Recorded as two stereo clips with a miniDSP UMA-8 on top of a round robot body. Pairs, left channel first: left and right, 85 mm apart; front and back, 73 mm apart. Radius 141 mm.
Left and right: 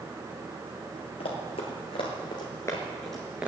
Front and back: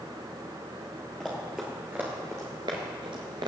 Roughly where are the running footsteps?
Left.